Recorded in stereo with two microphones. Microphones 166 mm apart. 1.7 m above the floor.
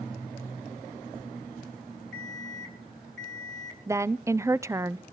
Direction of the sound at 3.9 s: 20° right (ahead or behind).